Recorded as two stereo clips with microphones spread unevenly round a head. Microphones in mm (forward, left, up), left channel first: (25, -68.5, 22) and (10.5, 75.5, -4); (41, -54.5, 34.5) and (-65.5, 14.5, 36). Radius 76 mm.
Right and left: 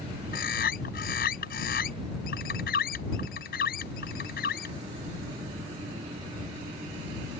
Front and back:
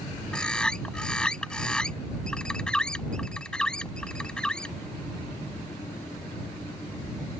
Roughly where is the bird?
Behind right.